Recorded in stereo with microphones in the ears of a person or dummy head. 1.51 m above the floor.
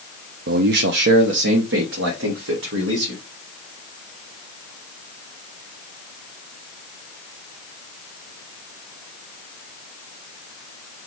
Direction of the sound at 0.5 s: 55° right (ahead or behind).